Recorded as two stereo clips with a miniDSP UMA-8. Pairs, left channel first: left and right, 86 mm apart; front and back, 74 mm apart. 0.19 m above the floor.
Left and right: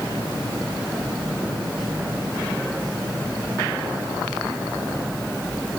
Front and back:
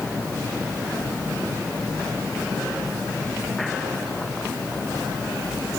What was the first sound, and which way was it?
Only background noise.